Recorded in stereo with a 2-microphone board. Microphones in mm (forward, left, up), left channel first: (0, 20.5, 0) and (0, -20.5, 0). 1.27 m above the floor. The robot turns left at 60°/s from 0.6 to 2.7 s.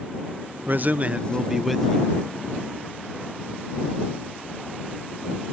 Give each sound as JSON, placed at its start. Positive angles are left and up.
{"t": 0.7, "sound": "a man speaking", "azimuth_deg": -115}